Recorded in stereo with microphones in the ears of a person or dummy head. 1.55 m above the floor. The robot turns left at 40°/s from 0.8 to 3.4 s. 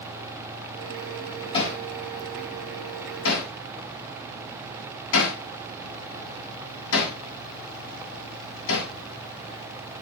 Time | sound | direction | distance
1.5 | hammering | 30° left (ahead or behind) | 9.5 m